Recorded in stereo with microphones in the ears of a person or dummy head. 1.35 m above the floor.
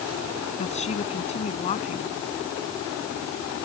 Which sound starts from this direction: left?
A woman speaking, at 0.6 s.